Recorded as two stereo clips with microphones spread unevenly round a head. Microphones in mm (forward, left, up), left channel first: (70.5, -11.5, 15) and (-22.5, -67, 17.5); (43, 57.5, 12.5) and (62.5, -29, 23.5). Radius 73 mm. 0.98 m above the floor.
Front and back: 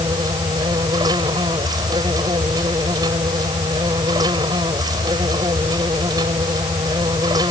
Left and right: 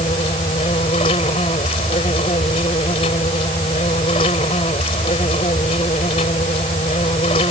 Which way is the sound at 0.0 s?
145° left.